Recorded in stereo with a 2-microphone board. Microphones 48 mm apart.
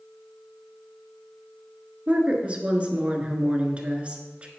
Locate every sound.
2.1 s a woman speaking: 25° right (ahead or behind), 1.3 m